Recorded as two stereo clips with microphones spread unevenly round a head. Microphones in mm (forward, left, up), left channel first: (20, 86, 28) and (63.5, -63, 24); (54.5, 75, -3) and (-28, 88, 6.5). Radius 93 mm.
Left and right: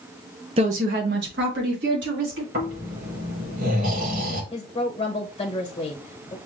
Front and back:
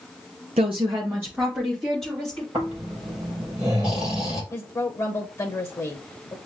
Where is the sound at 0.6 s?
135° right, 0.8 m; by 2.4 s 95° right, 3.5 m.